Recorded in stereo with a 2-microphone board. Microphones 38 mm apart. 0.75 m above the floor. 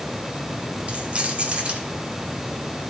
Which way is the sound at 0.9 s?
35° right (ahead or behind).